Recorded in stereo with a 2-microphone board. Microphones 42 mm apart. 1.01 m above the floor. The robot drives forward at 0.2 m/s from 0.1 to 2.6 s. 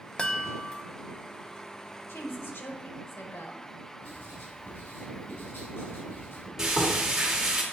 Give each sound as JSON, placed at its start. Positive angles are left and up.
{"t": 0.2, "sound": "a chime", "side_deg": 20, "distance_m": 0.5}
{"t": 2.1, "sound": "a woman speaking", "side_deg": 65, "distance_m": 1.1}
{"t": 4.0, "sound": "writing", "side_deg": 70, "distance_m": 3.0}
{"t": 6.6, "sound": "frying", "side_deg": -15, "distance_m": 2.0}